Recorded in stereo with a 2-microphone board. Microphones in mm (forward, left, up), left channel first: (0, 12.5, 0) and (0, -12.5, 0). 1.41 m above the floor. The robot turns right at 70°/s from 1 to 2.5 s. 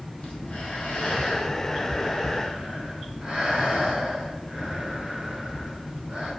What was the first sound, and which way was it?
Breathing, 110° left.